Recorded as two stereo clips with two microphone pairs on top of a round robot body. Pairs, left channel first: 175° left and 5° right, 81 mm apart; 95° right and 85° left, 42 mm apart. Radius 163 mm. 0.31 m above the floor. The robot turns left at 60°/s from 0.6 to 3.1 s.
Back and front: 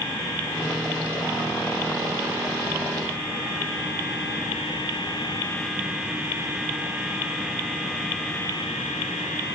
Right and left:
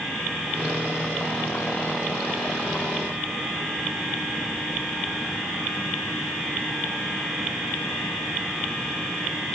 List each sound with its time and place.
Only background noise.